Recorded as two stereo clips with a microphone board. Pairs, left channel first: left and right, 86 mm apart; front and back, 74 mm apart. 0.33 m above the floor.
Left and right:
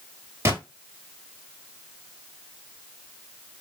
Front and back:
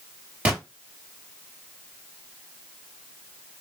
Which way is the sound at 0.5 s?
120° right.